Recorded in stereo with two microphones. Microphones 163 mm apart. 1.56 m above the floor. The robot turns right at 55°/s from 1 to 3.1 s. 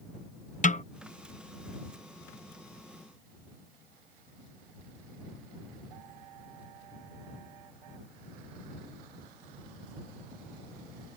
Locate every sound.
0.6 s a snare drum: 50° left (ahead or behind)